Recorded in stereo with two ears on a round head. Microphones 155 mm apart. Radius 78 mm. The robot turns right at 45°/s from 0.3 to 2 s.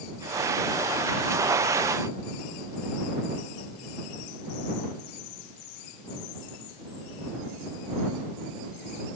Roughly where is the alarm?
I don't hear an alarm.